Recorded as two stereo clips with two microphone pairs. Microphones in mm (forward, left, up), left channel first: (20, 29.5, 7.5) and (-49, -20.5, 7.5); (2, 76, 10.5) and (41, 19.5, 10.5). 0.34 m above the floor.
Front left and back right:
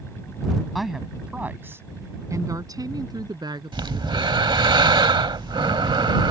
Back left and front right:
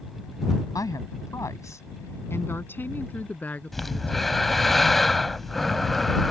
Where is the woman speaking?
125° left; by 4.5 s 165° right.